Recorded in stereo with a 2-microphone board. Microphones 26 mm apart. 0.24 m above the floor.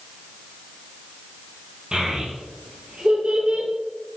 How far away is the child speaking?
About 4 m.